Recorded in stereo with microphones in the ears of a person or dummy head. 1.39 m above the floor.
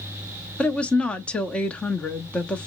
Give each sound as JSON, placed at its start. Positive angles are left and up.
{"t": 0.6, "sound": "a woman speaking", "side_deg": 5, "distance_m": 0.8}